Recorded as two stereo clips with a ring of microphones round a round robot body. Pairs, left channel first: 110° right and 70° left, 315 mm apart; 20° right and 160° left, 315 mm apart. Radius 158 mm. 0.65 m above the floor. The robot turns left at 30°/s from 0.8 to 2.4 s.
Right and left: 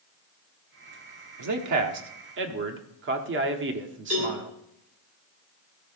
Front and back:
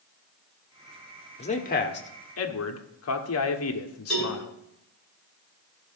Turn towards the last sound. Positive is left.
turn(degrees=65)